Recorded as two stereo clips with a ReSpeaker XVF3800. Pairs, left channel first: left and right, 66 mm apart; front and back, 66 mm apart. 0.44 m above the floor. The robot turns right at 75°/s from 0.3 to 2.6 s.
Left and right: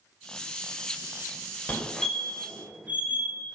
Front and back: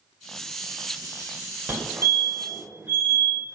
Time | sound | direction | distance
1.7 | a fire alarm | 145° left | 2.5 m